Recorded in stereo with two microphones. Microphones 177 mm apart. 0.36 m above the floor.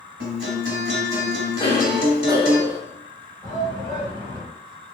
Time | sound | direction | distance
0.2 | a guitar | 75° right (ahead or behind) | 1.1 m
1.6 | a cough | 20° left (ahead or behind) | 2.0 m
3.4 | a shout | 20° left (ahead or behind) | 1.5 m